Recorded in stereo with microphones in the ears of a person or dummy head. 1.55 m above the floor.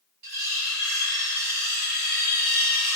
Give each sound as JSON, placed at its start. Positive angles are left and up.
{"t": 0.2, "sound": "cutlery clinking", "side_deg": -45, "distance_m": 1.2}